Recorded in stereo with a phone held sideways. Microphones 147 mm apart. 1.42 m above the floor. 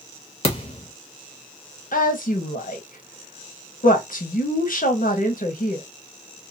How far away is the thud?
About 0.9 m.